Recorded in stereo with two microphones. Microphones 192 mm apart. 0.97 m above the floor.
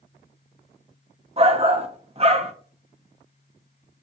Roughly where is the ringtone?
No ringtone in this recording.